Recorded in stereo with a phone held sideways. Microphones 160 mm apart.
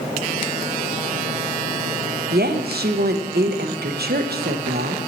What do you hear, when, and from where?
2.3 s a woman speaking: 80° right, 0.6 m